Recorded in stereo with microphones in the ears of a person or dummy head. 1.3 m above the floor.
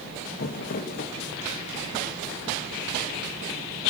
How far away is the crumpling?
About 1.6 m.